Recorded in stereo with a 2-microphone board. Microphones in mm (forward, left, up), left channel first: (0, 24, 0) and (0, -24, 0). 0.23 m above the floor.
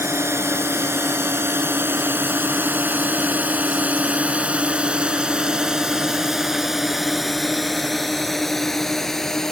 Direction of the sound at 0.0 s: 65° right (ahead or behind).